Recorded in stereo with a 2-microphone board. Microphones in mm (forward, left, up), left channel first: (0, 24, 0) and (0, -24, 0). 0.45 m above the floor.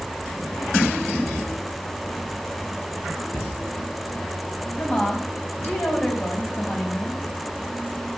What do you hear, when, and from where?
3.3 s a cupboard door: 80° left, 4.5 m
4.8 s a woman speaking: 40° left (ahead or behind), 3.5 m